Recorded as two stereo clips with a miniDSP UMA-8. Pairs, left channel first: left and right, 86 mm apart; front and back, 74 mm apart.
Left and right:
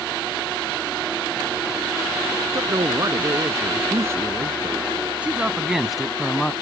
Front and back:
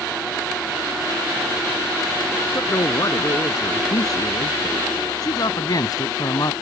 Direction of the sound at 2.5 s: 45° right.